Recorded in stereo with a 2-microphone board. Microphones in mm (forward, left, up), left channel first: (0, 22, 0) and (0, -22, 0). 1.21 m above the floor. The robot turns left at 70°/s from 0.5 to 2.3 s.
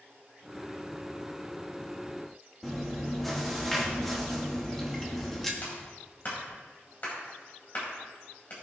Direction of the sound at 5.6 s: 40° left (ahead or behind).